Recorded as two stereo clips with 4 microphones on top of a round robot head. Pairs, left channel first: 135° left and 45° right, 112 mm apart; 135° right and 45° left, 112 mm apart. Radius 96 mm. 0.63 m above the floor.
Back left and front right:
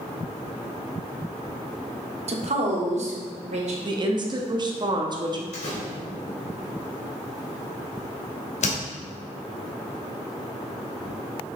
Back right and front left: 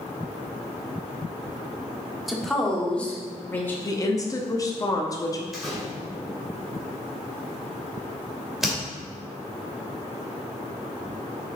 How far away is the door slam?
About 2.5 m.